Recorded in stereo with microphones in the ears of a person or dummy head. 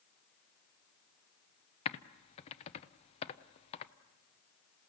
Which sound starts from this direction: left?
Typing on a keyboard, at 1.9 s.